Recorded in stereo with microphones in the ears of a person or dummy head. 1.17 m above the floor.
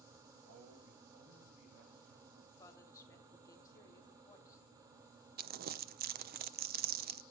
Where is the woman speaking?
20° left (ahead or behind), 2.5 m.